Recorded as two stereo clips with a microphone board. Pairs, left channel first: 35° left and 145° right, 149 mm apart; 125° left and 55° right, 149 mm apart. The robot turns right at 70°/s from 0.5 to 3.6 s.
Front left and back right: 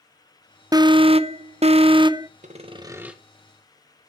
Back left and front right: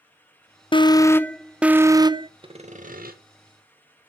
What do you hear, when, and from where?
0.7 s an alarm: 160° left, 0.7 m; by 2.3 s 90° right, 0.7 m
2.4 s sawing: 110° right, 1.9 m; by 3.2 s 60° right, 1.9 m